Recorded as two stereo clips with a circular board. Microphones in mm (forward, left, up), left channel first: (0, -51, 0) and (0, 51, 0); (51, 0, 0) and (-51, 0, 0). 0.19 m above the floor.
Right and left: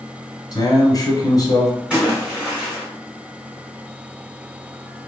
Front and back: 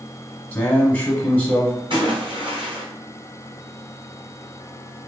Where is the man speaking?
70° right, 1.2 m.